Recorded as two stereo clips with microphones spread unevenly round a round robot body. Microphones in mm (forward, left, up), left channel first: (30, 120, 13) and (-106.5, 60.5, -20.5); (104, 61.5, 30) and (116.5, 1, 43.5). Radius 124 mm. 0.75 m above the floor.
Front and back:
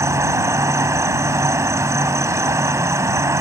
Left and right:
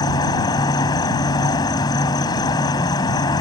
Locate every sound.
0.0 s an insect: 130° left